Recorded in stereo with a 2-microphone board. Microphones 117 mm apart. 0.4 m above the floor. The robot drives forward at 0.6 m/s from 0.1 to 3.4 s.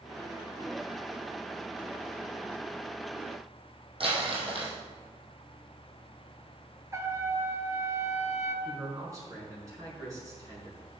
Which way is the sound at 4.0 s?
50° right (ahead or behind).